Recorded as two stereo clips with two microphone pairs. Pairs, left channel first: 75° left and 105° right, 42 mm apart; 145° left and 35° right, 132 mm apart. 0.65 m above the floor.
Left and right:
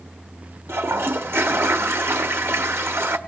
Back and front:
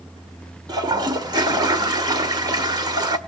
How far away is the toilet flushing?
About 1.4 m.